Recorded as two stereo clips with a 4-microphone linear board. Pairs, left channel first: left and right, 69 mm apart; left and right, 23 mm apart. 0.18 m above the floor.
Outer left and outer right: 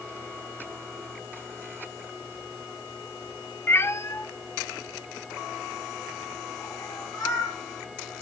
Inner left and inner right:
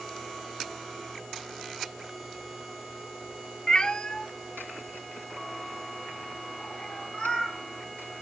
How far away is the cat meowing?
About 0.7 m.